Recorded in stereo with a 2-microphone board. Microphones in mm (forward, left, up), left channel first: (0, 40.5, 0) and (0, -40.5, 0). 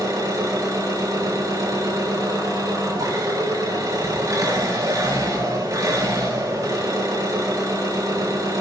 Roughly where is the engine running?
Right.